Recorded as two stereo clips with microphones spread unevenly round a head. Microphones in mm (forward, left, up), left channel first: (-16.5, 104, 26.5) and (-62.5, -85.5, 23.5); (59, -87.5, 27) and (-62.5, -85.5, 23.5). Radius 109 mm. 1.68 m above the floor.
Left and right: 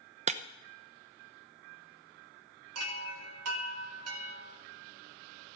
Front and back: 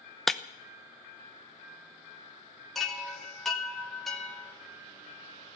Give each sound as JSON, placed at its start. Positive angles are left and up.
{"t": 0.3, "sound": "breaking glass", "azimuth_deg": -85, "distance_m": 0.8}
{"t": 2.8, "sound": "a chime", "azimuth_deg": -90, "distance_m": 2.5}